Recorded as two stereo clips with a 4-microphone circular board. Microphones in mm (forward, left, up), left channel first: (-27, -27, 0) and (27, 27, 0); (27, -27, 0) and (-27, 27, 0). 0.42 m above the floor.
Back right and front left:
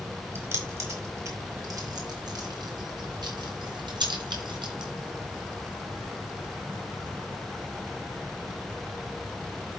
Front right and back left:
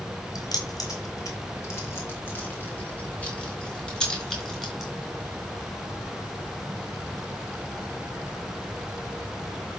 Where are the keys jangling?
10° right, 3.5 m; by 4.9 s 45° left, 4.5 m.